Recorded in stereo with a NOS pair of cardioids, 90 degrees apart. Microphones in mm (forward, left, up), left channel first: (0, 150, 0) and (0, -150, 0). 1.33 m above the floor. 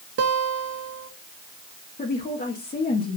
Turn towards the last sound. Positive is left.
turn(degrees=30)